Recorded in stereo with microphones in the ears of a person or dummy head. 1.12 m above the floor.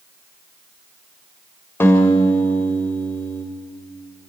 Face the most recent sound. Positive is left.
turn(degrees=10)  # may be behind; listen again after turning